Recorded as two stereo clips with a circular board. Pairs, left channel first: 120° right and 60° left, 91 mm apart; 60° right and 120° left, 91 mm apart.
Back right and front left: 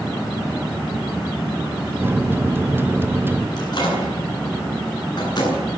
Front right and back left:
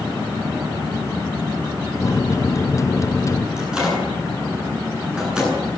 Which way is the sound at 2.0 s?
5° right.